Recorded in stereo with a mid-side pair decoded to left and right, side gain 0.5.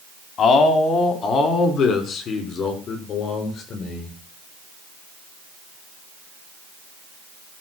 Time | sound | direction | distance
0.4 | a man speaking | 45° left | 4 m